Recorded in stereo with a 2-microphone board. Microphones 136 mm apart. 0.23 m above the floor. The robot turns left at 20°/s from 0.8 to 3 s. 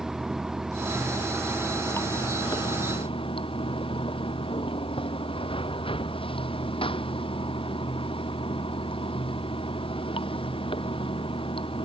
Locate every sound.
0.0 s running water: 175° right; by 11.9 s 140° left